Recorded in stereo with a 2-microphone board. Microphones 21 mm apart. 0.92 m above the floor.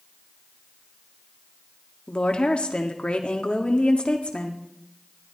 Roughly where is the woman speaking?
Left.